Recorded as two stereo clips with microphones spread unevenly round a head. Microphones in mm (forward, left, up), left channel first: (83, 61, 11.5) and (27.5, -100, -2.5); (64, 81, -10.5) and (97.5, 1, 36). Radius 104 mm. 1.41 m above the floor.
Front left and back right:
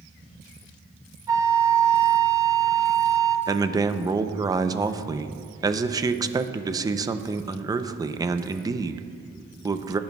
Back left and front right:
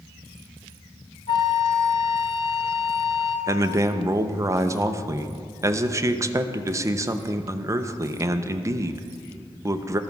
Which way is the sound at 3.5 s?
40° right.